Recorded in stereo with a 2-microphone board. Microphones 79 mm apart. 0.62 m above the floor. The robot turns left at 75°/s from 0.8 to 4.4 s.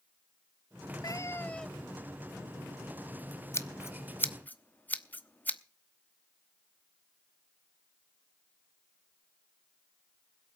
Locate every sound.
1.0 s a cat meowing: 55° left, 0.6 m; by 2.0 s 15° right, 0.6 m
3.5 s scissors: 35° left (ahead or behind), 0.9 m; by 5.6 s 20° left (ahead or behind), 0.9 m